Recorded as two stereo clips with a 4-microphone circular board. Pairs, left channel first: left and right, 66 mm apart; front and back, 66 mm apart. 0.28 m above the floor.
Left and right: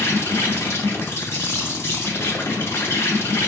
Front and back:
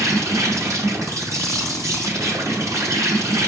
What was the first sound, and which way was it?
An insect, 140° left.